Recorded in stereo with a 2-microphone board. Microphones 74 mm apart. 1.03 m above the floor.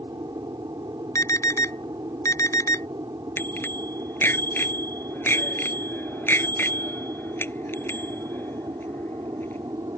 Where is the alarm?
45° left (ahead or behind).